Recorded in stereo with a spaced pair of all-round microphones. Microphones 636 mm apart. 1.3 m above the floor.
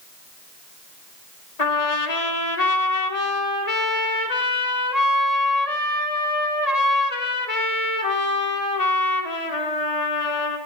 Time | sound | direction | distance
1.6 | a trumpet | 70° left (ahead or behind) | 1.9 m